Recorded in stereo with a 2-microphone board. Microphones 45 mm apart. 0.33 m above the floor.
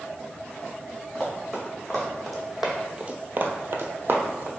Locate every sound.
1.1 s running footsteps: 10° left (ahead or behind), 1.9 m; by 4.5 s 45° right (ahead or behind), 1.0 m